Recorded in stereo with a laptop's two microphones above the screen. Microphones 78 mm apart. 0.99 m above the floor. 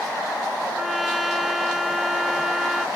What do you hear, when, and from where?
0.8 s a trumpet: 5° right (ahead or behind)